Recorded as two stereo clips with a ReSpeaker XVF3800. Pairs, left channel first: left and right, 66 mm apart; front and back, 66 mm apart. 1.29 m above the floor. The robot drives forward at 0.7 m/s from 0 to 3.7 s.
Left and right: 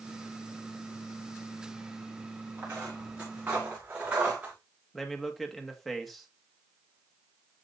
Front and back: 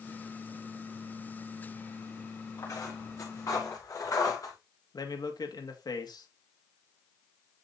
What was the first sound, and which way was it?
Footsteps, 35° right.